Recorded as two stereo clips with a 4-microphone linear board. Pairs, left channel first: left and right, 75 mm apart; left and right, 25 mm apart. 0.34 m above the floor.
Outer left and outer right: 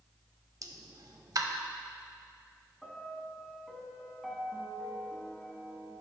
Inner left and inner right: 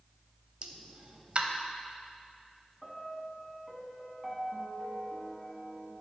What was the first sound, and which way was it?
A pop, 55° right (ahead or behind).